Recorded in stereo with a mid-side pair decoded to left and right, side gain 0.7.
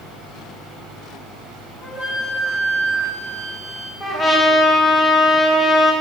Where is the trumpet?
25° left, 4 m.